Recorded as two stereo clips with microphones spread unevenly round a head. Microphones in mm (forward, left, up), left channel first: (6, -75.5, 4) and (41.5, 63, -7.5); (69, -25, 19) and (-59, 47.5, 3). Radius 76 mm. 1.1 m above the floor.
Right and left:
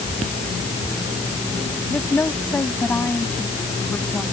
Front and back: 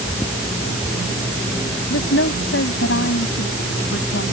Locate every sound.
1.9 s a woman speaking: 25° right